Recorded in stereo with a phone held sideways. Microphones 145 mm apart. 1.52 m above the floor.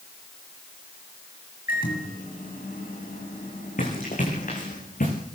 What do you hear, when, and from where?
1.7 s a microwave: 85° left, 8 m
3.8 s running footsteps: 65° left (ahead or behind), 8 m; by 5.1 s 70° left (ahead or behind), 9.5 m